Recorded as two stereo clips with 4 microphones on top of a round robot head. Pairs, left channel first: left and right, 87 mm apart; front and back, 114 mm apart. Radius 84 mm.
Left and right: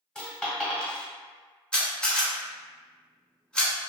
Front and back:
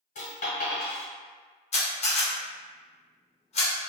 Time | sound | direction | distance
0.1 | a dropped coin | 10° left | 1.4 m
1.7 | a camera shutter | 10° left | 1.3 m